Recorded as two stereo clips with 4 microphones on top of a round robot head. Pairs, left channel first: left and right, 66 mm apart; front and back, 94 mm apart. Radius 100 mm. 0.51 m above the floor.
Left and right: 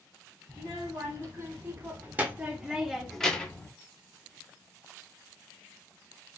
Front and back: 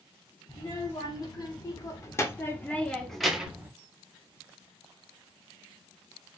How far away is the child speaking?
About 1.7 m.